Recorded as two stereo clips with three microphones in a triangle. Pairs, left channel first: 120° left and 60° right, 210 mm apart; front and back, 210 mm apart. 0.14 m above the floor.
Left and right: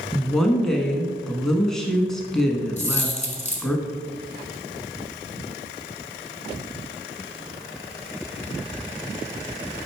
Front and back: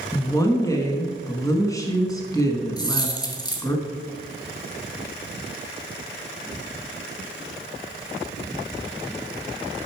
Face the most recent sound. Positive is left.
turn(degrees=70)